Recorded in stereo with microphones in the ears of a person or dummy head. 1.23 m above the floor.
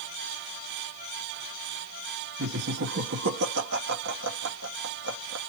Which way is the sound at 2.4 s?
75° right (ahead or behind).